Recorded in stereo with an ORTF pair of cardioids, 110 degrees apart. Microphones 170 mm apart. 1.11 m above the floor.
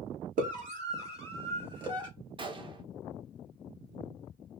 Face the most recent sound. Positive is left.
turn(degrees=-30)